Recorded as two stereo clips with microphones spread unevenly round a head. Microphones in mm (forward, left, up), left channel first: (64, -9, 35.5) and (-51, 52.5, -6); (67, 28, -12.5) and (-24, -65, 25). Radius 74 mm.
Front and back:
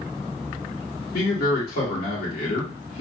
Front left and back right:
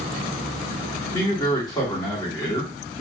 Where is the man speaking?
15° right, 2.5 m.